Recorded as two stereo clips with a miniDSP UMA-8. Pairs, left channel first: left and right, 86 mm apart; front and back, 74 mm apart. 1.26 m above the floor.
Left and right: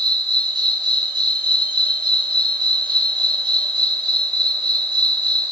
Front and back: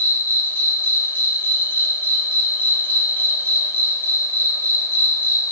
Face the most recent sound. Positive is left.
turn(degrees=-65)